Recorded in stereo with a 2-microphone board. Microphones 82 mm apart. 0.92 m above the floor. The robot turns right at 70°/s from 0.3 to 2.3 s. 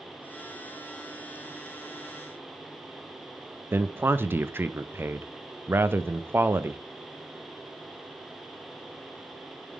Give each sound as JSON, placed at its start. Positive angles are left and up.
{"t": 3.7, "sound": "a man speaking", "side_deg": -25, "distance_m": 0.5}